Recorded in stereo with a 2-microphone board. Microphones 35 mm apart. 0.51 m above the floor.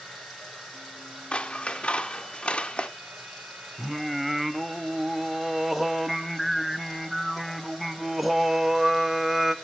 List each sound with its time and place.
0.0 s running water: centre (ahead or behind), 9.5 m
1.3 s scissors: 35° left (ahead or behind), 0.7 m
3.8 s singing: 5° right (ahead or behind), 0.8 m